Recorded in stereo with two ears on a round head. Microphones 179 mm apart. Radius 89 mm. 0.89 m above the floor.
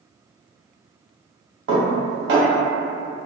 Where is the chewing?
No chewing in this recording.